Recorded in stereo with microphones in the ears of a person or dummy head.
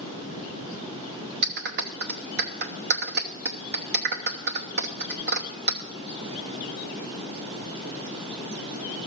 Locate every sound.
1.4 s a clap: 50° right (ahead or behind), 1.0 m